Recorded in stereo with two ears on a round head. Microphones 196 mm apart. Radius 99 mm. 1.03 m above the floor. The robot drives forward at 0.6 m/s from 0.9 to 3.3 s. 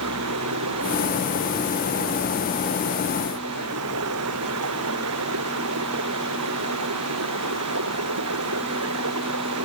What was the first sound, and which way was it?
Running water, 85° right.